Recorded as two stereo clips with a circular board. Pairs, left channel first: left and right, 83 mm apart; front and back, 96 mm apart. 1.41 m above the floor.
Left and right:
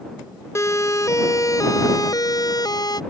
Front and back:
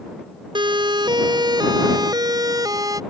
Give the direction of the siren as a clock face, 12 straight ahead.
7 o'clock.